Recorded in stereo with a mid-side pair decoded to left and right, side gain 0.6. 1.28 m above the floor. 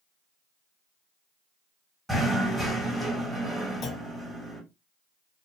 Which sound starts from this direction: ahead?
Knocking, at 2.1 s.